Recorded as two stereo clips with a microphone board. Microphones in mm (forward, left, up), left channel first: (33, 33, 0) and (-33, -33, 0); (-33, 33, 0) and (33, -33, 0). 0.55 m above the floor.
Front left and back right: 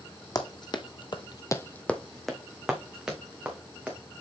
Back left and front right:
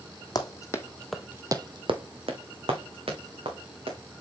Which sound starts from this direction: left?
Running footsteps, at 0.3 s.